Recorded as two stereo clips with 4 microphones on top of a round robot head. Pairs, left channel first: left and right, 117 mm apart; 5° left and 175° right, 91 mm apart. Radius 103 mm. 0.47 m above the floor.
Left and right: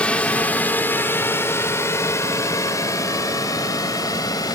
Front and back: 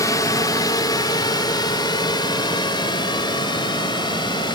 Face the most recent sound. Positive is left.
turn(degrees=35)